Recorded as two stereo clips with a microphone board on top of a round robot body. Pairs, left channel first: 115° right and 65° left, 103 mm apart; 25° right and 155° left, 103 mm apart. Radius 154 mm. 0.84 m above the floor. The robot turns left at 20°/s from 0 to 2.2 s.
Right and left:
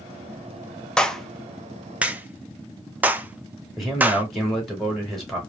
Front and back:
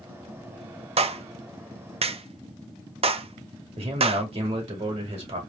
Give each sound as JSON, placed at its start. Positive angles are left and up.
{"t": 1.0, "sound": "a clap", "azimuth_deg": 165, "distance_m": 0.5}
{"t": 3.8, "sound": "a man speaking", "azimuth_deg": 160, "distance_m": 2.5}